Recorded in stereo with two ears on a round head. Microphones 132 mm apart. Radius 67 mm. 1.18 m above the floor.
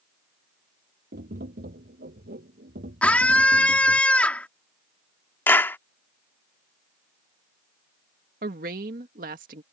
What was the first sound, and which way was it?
Tapping, 70° right (ahead or behind).